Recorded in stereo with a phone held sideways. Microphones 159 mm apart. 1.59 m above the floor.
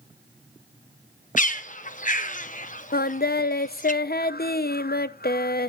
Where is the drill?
No drill in this recording.